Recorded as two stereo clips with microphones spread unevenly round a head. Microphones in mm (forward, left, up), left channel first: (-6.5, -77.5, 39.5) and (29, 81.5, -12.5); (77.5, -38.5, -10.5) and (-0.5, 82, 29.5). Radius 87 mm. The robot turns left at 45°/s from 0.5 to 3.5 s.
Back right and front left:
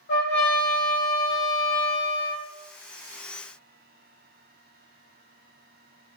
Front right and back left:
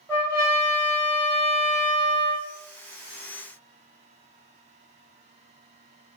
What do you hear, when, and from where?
0.1 s a trumpet: 130° right, 1.4 m; by 2.5 s 145° left, 1.4 m